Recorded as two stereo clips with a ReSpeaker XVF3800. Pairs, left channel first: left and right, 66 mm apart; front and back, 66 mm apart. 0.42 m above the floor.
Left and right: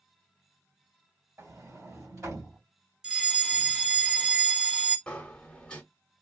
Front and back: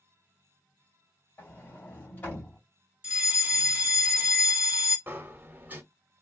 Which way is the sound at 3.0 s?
155° right.